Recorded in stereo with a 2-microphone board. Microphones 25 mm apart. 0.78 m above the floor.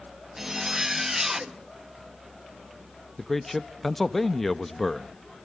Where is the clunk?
No clunk in this recording.